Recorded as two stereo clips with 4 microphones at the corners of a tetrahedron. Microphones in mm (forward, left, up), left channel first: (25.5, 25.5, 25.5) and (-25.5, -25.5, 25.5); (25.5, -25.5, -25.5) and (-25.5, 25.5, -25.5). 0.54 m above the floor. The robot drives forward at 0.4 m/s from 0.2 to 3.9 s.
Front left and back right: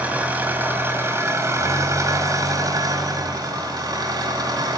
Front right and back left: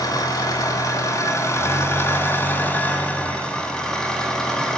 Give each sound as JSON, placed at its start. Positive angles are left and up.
{"t": 0.0, "sound": "an engine running", "azimuth_deg": -65, "distance_m": 1.5}